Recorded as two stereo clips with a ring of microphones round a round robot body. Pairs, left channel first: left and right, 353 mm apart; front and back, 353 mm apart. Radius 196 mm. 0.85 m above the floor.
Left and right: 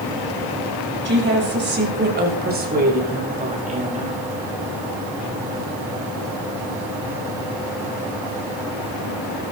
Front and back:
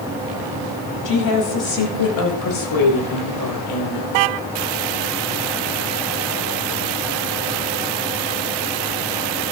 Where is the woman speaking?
30° right, 6 m; by 4.2 s 20° right, 4.5 m.